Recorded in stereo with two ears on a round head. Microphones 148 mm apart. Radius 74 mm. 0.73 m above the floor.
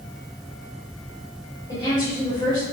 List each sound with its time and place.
1.7 s a woman speaking: 30° left (ahead or behind), 3 m